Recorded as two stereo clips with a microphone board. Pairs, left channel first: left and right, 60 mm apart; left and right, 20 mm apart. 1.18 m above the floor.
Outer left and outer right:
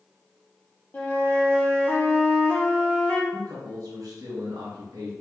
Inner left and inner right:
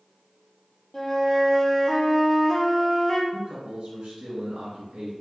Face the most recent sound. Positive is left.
turn(degrees=-80)